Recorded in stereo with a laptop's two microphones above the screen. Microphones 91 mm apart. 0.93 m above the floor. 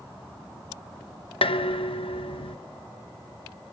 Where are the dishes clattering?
85° left, 0.6 m.